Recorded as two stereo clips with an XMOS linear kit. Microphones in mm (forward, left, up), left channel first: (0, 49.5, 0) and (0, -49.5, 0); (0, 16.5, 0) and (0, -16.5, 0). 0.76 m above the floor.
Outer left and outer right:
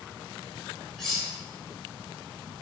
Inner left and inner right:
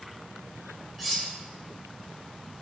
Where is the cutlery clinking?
5° left (ahead or behind), 0.5 m.